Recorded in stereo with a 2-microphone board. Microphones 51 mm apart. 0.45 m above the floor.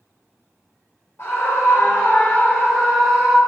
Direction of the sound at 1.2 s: 50° left (ahead or behind).